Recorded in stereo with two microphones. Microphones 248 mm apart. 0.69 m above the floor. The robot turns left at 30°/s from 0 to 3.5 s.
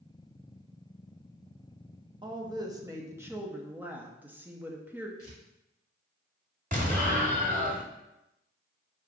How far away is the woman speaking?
About 0.6 m.